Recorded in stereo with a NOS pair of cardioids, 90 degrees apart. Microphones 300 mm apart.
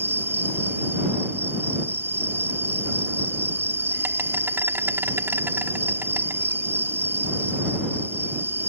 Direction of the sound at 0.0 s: 10° right.